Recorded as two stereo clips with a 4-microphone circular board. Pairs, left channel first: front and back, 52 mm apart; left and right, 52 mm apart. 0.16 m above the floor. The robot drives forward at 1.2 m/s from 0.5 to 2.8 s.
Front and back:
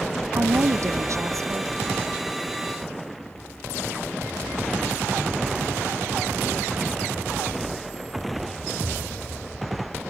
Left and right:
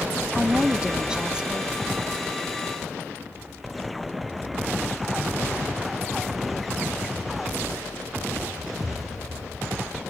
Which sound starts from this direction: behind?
A woman speaking, at 0.3 s.